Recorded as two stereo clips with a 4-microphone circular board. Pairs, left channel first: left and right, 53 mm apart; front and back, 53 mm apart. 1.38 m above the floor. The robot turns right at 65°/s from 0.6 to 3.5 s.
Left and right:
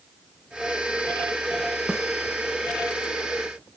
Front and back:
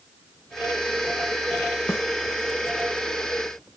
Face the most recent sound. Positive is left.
turn(degrees=80)